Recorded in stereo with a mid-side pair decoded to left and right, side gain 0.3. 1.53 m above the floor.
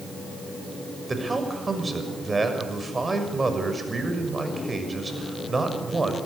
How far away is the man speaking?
About 6.5 m.